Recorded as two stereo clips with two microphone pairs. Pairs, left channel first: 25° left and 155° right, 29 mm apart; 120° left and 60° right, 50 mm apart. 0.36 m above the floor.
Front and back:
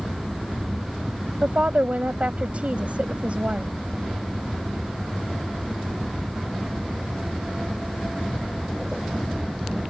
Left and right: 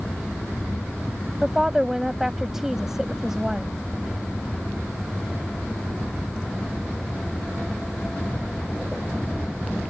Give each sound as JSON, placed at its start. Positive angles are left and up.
{"t": 1.4, "sound": "a woman speaking", "azimuth_deg": -140}